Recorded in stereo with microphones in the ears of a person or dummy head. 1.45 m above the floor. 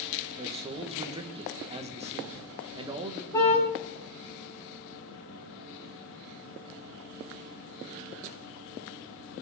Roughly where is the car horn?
Centre.